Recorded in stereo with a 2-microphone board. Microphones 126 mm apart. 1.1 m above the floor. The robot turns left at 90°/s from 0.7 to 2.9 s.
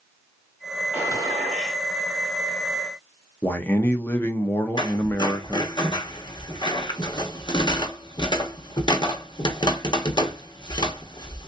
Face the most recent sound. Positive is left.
turn(degrees=35)  # may be behind; listen again after turning